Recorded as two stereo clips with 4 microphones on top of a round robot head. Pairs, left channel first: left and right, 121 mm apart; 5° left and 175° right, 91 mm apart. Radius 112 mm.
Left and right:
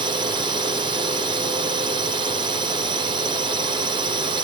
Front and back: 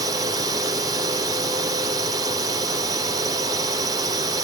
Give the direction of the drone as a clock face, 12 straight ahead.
4 o'clock.